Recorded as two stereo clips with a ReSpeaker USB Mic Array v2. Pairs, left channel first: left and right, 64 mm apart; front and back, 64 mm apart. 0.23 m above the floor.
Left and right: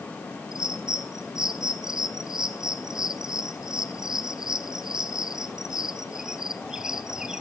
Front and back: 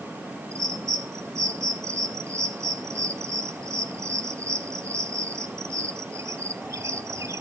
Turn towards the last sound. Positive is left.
turn(degrees=-165)